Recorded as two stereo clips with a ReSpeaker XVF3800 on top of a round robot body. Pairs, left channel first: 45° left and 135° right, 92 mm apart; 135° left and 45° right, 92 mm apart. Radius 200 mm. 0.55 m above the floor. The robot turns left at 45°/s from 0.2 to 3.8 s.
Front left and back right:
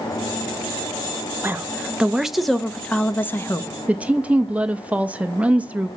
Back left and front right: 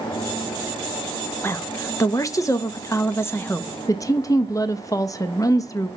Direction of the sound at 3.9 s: 160° left.